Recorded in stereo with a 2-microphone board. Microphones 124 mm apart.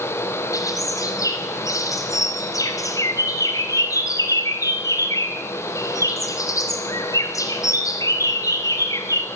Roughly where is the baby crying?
No baby crying in this recording.